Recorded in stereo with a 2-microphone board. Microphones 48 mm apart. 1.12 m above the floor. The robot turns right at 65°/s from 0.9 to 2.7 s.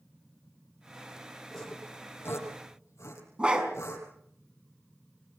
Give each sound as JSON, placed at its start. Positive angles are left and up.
{"t": 1.5, "sound": "sawing", "side_deg": 5, "distance_m": 6.5}
{"t": 3.4, "sound": "a dog barking", "side_deg": -20, "distance_m": 5.0}